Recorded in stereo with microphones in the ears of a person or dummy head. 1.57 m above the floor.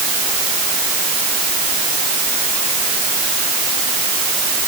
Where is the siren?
No siren in this recording.